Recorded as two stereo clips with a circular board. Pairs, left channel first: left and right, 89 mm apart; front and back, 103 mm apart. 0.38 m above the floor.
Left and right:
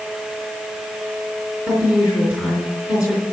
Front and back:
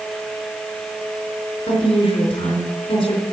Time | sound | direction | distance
1.7 | a woman speaking | 15° right | 3.5 m